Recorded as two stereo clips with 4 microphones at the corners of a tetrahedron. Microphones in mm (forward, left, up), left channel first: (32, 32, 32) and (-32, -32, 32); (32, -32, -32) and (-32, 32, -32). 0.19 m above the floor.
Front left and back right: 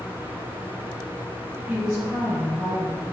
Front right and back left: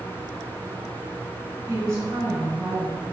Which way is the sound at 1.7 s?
150° left.